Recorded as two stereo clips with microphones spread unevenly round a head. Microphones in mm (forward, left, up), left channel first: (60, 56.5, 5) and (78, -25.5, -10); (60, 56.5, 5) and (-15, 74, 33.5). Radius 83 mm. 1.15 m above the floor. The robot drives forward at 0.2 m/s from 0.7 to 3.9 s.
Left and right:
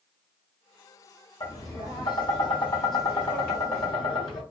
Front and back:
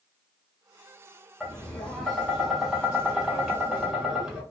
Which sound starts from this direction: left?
Tapping, at 1.4 s.